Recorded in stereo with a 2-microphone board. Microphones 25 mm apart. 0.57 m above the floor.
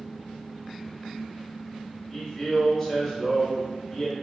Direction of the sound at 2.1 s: Centre (ahead or behind).